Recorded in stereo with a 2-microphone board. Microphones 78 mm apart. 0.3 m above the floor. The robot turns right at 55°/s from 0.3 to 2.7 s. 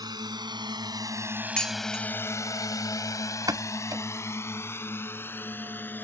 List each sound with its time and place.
0.0 s a drone: 55° right (ahead or behind); by 6.0 s 20° left (ahead or behind)
1.6 s dishes clattering: 10° left (ahead or behind); by 2.0 s 15° right (ahead or behind)
3.5 s a pop: 50° right (ahead or behind)